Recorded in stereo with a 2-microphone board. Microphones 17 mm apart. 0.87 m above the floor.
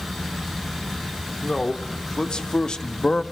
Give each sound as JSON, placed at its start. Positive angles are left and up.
{"t": 1.4, "sound": "a man speaking", "side_deg": 65, "distance_m": 3.0}